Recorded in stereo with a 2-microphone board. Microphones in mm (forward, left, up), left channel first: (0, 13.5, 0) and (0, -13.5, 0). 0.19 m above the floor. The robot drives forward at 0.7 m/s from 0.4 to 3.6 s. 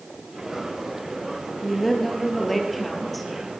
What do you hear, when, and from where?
1.6 s a woman speaking: 5° left (ahead or behind), 3.5 m; by 3.3 s centre (ahead or behind), 4.5 m